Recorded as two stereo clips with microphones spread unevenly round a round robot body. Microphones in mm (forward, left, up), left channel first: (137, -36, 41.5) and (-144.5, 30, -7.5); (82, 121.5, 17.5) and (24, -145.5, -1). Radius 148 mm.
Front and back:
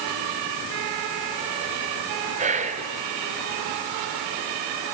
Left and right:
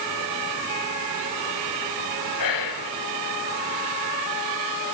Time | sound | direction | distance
2.4 | whispering | 100° left | 3 m